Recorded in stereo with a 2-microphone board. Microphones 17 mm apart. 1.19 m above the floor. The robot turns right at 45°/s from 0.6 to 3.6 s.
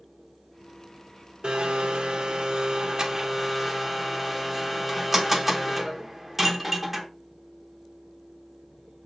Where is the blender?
110° right, 0.9 m; by 7.1 s 10° right, 0.9 m.